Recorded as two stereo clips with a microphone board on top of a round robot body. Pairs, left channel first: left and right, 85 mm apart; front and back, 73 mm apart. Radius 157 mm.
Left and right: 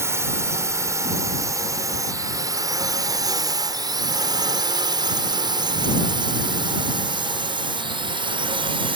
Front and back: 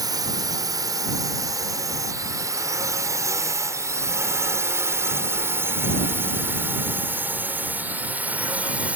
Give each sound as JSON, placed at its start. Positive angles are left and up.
{"t": 0.0, "sound": "a drone", "azimuth_deg": -150}